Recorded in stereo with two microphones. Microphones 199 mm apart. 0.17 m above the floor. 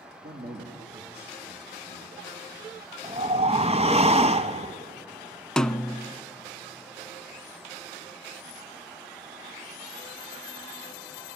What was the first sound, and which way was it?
A man speaking, 60° right (ahead or behind).